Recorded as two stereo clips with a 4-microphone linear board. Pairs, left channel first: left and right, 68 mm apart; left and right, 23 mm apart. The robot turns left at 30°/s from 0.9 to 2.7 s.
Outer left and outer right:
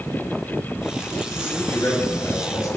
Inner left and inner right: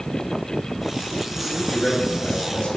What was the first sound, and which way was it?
A man speaking, 155° left.